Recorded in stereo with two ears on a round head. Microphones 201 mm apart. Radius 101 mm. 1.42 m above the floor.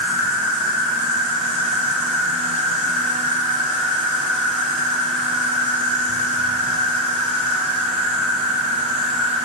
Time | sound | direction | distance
0.0 | an insect | 55° right (ahead or behind) | 1.7 m